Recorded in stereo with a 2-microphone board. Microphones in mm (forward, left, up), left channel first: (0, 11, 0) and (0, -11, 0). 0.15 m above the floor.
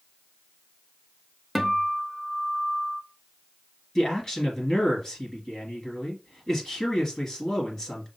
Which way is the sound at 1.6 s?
Centre (ahead or behind).